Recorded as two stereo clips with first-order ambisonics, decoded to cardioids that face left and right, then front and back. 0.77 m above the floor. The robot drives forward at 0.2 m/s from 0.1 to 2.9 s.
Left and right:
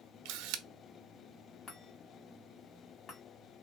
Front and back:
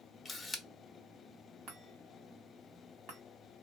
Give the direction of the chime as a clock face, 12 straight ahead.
7 o'clock.